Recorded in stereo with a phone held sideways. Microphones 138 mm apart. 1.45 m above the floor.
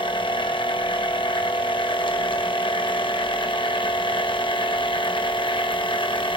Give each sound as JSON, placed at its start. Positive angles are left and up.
{"t": 0.0, "sound": "a machine running", "side_deg": 35, "distance_m": 1.2}